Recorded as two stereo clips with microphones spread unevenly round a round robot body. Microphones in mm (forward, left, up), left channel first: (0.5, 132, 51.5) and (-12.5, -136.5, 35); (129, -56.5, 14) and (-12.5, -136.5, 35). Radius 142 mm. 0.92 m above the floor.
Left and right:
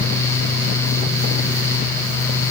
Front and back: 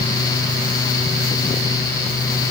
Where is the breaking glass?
I don't hear breaking glass.